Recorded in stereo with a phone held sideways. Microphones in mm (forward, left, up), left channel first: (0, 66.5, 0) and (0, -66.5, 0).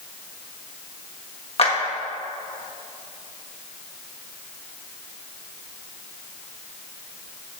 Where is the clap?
50° left (ahead or behind), 1.3 m.